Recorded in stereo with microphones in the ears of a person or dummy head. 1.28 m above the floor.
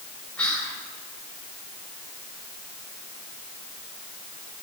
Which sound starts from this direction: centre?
Whispering, at 0.4 s.